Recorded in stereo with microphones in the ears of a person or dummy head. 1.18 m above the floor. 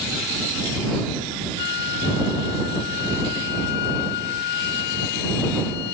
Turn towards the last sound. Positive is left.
turn(degrees=65)  # may be behind; listen again after turning